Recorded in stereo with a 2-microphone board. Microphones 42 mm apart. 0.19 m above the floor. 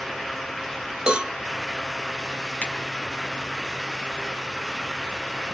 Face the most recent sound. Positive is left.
turn(degrees=25)  # may be behind; listen again after turning